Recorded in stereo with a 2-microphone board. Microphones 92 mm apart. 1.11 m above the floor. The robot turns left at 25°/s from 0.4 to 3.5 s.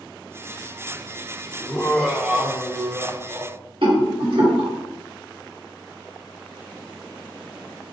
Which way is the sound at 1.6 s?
10° left.